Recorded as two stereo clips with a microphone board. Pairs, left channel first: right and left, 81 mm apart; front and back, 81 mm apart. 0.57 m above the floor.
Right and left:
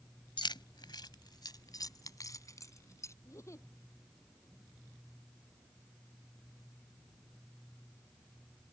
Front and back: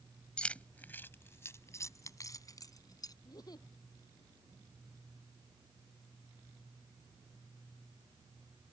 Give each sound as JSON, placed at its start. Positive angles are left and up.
{"t": 0.4, "sound": "keys jangling", "azimuth_deg": -80}
{"t": 3.2, "sound": "a giggle", "azimuth_deg": -40}